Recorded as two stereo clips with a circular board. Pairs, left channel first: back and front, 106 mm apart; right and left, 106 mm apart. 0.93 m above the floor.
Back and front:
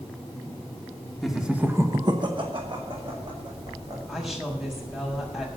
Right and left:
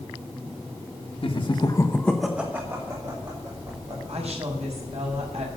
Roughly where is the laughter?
Right.